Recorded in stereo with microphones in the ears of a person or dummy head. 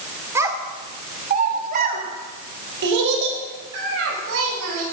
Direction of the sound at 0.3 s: 15° right (ahead or behind).